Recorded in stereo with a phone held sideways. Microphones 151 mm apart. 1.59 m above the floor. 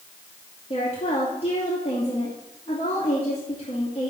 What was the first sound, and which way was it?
A woman speaking, 45° left (ahead or behind).